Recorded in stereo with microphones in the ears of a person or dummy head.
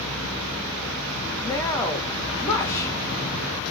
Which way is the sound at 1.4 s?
25° left (ahead or behind).